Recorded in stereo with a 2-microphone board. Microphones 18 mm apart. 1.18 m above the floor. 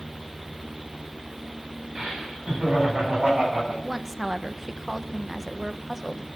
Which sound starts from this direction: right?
Laughter, at 1.9 s.